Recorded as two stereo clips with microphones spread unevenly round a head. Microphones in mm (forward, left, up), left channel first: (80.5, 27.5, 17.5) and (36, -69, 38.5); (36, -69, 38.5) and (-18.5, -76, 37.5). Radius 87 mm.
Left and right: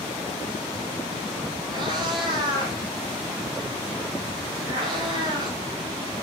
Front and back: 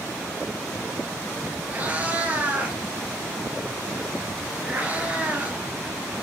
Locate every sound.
1.7 s a cat meowing: 115° right, 2.5 m